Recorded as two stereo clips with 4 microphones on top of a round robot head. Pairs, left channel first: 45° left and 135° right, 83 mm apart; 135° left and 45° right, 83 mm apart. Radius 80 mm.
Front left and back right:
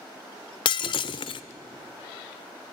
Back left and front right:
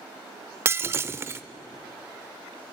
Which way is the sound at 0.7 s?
15° left.